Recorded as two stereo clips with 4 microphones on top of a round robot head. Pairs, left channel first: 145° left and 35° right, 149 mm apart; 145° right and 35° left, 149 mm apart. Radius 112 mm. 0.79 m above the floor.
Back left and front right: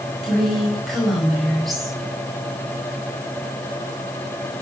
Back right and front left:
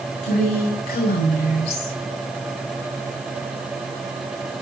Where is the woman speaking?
125° right, 5.5 m.